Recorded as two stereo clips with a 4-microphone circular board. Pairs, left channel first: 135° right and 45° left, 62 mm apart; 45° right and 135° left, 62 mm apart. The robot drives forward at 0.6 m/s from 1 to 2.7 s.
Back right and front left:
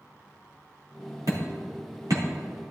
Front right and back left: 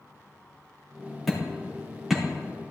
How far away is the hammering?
About 3 m.